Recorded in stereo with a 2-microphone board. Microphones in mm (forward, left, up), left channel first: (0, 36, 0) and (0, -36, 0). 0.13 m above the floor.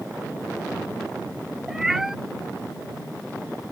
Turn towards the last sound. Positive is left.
turn(degrees=-5)  # may be behind; listen again after turning